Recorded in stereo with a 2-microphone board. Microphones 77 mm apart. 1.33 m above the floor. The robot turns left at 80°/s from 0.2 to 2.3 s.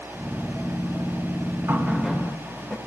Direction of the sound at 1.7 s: 145° right.